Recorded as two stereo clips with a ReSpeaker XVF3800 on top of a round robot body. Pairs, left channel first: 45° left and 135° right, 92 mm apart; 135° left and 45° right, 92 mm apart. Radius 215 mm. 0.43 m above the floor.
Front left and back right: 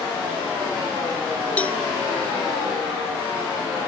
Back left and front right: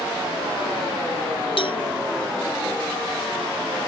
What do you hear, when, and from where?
1.6 s a cowbell: 120° left